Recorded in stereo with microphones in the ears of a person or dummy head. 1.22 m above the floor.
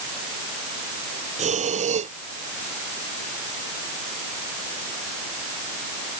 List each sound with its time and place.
1.4 s breathing: 35° right (ahead or behind)